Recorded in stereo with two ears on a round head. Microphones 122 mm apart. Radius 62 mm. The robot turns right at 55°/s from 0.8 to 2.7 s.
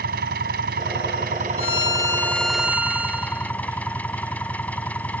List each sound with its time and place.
0.0 s an engine running: 95° right; by 5.2 s 10° left
1.6 s a violin: 130° left; by 3.5 s 170° right